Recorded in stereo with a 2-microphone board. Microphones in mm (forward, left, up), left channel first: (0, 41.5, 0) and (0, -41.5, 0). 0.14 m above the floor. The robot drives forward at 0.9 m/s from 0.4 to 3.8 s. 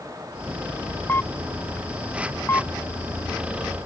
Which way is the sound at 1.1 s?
25° left (ahead or behind).